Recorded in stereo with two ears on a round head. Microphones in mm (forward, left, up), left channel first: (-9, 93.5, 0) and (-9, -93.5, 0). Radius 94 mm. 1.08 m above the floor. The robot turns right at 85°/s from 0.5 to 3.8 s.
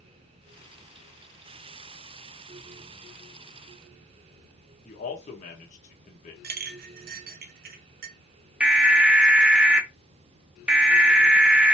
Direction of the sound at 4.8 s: 35° left (ahead or behind).